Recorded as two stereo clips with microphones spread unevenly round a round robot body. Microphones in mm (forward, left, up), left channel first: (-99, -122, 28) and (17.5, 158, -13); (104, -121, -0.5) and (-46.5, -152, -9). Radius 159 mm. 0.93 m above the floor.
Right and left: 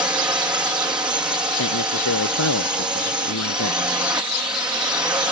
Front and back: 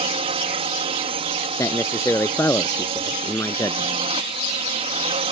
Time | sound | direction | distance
0.0 | a drone | 145° left | ?
1.6 | a man speaking | 60° right | ?